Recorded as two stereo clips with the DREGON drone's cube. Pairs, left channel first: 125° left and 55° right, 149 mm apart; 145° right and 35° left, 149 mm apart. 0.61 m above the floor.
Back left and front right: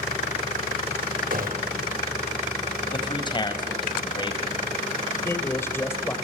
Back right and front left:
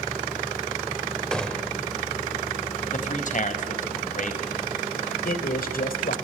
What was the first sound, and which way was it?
A gunshot, 60° right.